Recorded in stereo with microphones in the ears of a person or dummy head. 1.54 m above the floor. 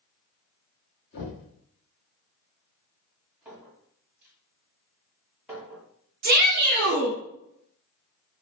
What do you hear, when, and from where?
1.1 s knocking: 55° left (ahead or behind), 1.7 m
3.5 s a clink: 10° right (ahead or behind), 1.7 m
6.2 s a shout: 50° right (ahead or behind), 1.1 m